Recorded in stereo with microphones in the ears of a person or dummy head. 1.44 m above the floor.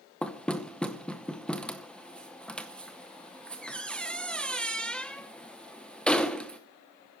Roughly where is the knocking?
Centre.